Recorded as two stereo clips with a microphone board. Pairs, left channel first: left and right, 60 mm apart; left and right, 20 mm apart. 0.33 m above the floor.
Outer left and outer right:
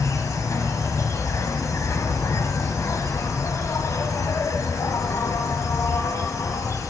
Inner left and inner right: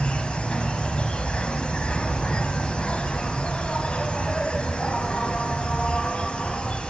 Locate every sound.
0.0 s an insect: 60° left (ahead or behind), 1.6 m